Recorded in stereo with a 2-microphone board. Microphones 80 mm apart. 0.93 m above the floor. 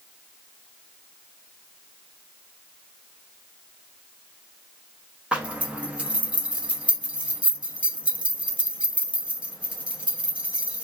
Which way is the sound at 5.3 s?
15° right (ahead or behind).